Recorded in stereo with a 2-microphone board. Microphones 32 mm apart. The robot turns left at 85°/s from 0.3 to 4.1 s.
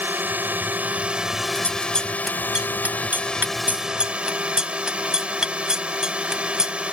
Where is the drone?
75° right; by 6.9 s 35° right.